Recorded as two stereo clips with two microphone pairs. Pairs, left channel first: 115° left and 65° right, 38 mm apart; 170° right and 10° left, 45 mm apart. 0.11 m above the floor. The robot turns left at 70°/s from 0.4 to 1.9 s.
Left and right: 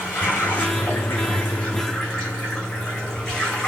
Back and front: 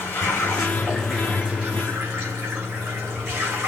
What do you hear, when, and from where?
0.0 s running water: 150° left, 6 m; by 3.7 s 45° left, 6 m